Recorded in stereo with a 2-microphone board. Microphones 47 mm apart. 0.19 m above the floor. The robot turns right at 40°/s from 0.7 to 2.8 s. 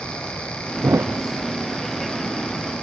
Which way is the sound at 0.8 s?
85° right.